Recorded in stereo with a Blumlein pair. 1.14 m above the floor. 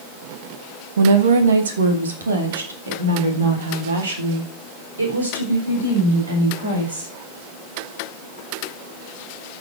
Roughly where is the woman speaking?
Ahead right.